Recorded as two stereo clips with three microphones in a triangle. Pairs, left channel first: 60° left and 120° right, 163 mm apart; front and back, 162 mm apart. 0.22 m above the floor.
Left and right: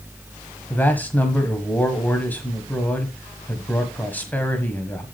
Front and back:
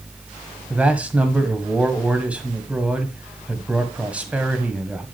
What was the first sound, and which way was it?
A man speaking, 115° left.